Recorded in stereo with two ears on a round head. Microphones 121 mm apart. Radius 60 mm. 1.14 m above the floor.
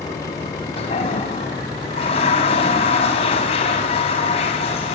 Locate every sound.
0.8 s a toilet flushing: 45° left (ahead or behind), 5 m